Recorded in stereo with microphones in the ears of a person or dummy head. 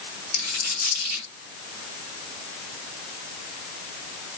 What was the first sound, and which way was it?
A dropped coin, 50° left (ahead or behind).